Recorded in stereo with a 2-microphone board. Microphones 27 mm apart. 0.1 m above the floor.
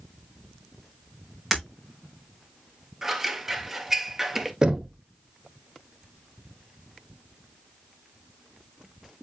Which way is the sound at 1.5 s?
10° right (ahead or behind).